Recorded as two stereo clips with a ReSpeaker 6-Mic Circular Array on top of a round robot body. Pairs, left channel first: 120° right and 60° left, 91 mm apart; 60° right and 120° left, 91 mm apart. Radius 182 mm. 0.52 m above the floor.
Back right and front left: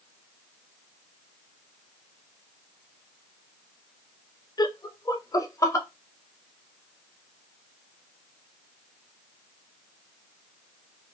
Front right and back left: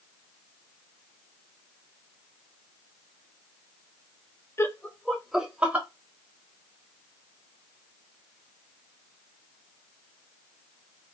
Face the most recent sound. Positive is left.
turn(degrees=-170)